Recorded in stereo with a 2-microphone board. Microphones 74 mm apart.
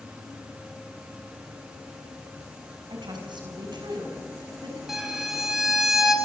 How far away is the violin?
About 4 m.